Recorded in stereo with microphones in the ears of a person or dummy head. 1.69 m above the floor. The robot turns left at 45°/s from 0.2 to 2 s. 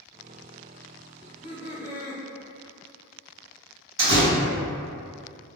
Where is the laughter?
Straight ahead, 1.6 m; by 2.2 s 40° right, 1.6 m.